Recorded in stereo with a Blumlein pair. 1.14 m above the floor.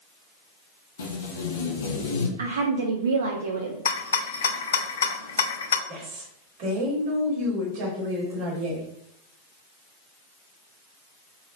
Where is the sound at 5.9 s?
45° right, 1.8 m.